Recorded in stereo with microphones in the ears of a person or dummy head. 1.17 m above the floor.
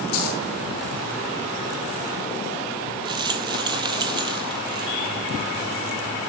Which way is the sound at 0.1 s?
85° left.